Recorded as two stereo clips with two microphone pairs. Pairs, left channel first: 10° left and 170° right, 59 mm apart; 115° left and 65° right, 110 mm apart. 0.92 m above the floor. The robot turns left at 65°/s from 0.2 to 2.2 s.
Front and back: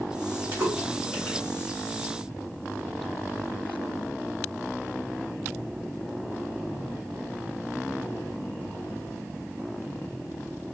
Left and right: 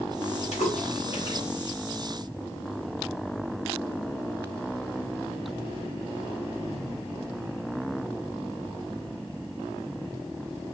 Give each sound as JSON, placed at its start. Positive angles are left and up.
{"t": 0.5, "sound": "a splash", "azimuth_deg": 130, "distance_m": 3.0}